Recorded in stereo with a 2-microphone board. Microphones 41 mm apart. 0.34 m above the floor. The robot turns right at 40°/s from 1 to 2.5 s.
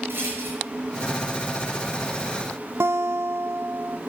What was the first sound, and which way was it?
A rattle, 60° right (ahead or behind).